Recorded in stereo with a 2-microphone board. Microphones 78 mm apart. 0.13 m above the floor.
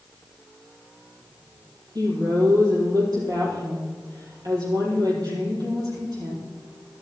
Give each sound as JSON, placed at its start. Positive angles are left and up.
{"t": 1.9, "sound": "a woman speaking", "side_deg": -50, "distance_m": 5.0}